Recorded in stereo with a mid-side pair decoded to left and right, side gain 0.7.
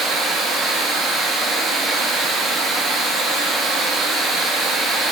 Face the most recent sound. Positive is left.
turn(degrees=-30)